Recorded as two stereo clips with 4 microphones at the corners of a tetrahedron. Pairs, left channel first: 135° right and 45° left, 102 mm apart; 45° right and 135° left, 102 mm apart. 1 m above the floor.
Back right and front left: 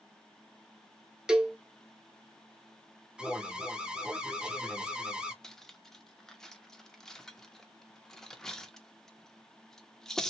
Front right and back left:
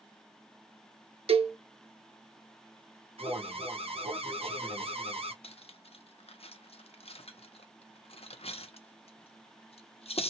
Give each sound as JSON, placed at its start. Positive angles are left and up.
{"t": 1.3, "sound": "a cowbell", "azimuth_deg": 130, "distance_m": 0.6}
{"t": 3.2, "sound": "an alarm", "azimuth_deg": 125, "distance_m": 0.7}
{"t": 5.4, "sound": "cutlery clinking", "azimuth_deg": -50, "distance_m": 0.6}